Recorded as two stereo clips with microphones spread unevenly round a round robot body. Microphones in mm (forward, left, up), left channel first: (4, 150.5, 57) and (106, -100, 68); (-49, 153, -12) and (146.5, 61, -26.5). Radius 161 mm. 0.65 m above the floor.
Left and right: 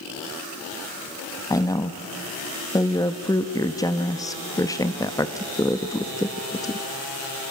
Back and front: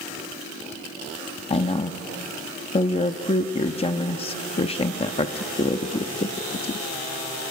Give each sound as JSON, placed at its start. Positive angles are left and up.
{"t": 1.5, "sound": "a woman speaking", "azimuth_deg": 160, "distance_m": 0.8}